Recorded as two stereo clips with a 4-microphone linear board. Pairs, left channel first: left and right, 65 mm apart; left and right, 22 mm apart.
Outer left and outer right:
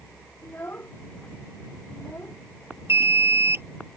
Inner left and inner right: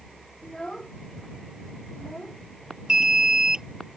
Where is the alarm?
40° right (ahead or behind).